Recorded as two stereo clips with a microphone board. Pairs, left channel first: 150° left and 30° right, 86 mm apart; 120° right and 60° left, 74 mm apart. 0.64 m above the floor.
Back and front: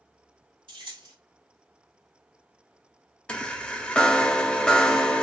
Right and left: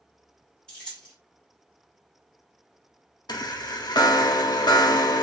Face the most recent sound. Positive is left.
turn(degrees=-135)